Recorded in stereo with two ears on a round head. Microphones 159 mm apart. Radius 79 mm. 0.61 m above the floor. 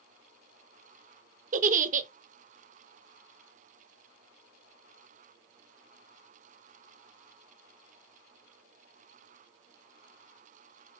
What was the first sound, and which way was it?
A giggle, 45° right (ahead or behind).